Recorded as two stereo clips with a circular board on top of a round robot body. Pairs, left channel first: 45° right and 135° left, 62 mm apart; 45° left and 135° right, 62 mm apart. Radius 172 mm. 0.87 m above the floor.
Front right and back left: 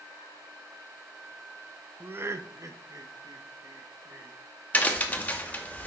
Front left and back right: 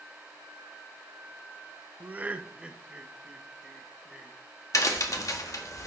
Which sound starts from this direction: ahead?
A crack, at 4.7 s.